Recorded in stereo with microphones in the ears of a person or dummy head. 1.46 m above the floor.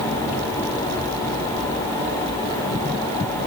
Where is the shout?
I don't hear a shout.